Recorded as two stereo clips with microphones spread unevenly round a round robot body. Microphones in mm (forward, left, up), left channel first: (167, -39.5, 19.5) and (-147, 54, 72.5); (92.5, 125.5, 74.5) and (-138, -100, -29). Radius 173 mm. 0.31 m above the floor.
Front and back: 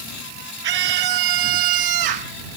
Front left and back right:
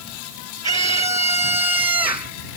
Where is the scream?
150° left; by 2.3 s 145° left.